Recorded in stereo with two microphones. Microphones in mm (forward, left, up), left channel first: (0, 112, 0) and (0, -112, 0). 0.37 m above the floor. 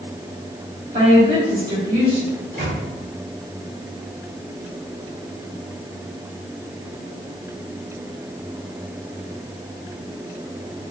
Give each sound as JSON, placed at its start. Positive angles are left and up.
{"t": 0.9, "sound": "a woman speaking", "side_deg": -40, "distance_m": 2.0}
{"t": 2.3, "sound": "a microwave", "side_deg": -45, "distance_m": 1.4}